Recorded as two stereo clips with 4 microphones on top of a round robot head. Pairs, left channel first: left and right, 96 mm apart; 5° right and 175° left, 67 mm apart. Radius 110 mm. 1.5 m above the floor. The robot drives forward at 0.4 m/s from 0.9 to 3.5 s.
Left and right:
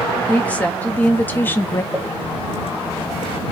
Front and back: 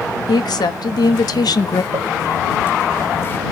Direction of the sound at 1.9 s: 160° left.